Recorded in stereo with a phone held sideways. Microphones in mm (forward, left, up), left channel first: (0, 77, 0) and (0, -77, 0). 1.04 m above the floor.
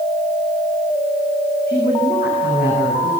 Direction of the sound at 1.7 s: 70° left (ahead or behind).